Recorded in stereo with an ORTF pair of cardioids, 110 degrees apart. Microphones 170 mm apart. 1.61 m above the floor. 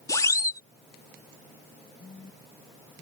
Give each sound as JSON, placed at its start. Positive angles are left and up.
{"t": 0.1, "sound": "a siren", "azimuth_deg": 20}
{"t": 2.0, "sound": "a phone buzzing", "azimuth_deg": 25}